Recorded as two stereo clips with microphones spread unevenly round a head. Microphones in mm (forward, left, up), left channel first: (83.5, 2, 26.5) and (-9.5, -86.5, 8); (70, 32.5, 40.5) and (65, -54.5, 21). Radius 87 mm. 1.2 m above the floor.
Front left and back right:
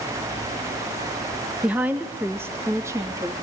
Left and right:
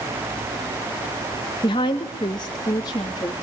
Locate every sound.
1.6 s a woman speaking: 140° left, 1.4 m; by 3.3 s 150° left, 2.5 m